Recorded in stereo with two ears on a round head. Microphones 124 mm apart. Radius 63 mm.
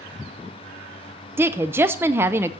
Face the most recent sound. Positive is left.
turn(degrees=-15)  # may be behind; listen again after turning